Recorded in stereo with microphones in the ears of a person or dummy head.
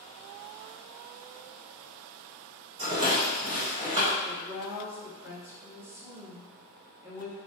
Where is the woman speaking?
10° right (ahead or behind), 1.3 m.